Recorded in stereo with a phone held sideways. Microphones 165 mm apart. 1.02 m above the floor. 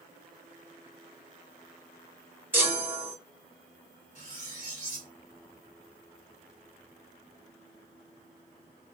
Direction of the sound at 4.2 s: 45° left (ahead or behind).